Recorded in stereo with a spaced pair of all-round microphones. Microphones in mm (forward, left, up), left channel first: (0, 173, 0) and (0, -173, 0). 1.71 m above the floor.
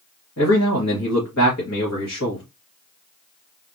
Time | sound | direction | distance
0.4 | a man speaking | 45° left (ahead or behind) | 1.7 m